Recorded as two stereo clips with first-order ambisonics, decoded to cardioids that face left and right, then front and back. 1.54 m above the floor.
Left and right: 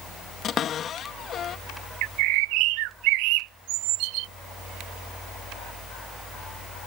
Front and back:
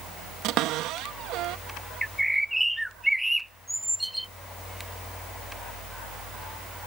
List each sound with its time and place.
0.4 s a cupboard door: 145° left
2.0 s a bird: 95° right